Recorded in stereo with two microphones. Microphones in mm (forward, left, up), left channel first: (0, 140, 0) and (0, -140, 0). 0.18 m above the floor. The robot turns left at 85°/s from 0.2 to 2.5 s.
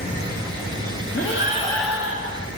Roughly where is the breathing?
Ahead left.